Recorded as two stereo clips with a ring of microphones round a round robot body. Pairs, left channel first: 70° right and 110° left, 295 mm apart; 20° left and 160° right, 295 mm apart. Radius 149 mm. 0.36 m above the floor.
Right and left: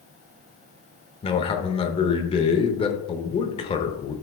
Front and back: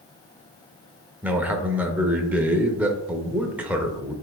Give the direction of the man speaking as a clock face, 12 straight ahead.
3 o'clock.